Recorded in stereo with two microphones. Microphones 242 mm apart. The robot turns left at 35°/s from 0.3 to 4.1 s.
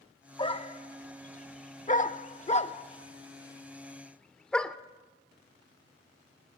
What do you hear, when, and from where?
0.4 s a dog barking: 20° left (ahead or behind), 0.6 m; by 4.8 s 5° left (ahead or behind), 0.6 m